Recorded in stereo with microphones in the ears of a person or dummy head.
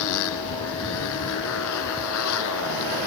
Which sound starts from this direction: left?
A motorcycle, at 0.0 s.